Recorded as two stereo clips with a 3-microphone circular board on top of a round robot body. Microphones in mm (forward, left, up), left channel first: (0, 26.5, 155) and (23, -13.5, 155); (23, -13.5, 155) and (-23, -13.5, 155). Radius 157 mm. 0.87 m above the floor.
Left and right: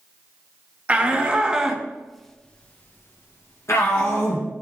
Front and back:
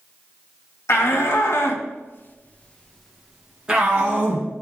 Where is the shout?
5° left, 1.6 m; by 4.5 s 125° left, 1.5 m.